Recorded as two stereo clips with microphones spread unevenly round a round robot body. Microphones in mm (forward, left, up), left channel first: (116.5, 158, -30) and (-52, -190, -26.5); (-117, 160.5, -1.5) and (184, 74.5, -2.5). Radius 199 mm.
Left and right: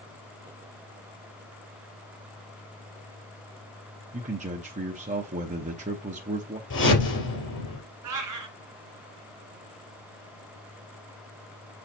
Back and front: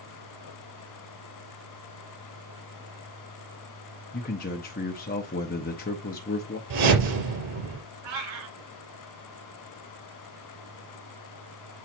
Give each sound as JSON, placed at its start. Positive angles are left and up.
{"t": 4.1, "sound": "a man speaking", "azimuth_deg": -170, "distance_m": 0.7}
{"t": 6.7, "sound": "a whoosh", "azimuth_deg": 0, "distance_m": 4.0}
{"t": 8.0, "sound": "a cat meowing", "azimuth_deg": -70, "distance_m": 1.8}